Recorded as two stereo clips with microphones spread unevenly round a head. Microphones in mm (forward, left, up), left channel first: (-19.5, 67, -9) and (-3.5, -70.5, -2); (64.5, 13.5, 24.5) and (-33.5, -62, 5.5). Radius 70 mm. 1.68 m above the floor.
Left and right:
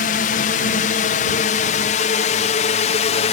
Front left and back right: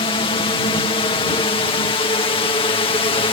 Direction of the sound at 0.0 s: 90° left.